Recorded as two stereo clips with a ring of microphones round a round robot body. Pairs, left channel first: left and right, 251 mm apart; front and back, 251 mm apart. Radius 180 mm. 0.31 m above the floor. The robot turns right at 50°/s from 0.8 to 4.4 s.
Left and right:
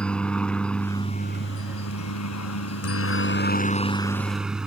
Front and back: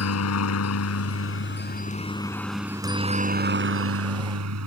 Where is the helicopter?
5° left; by 4.7 s 175° right.